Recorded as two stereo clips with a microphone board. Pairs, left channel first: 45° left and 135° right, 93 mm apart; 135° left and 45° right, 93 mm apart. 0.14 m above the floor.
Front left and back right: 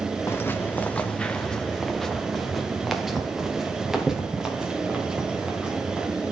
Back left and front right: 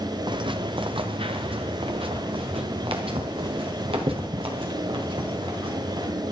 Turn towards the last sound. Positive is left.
turn(degrees=-55)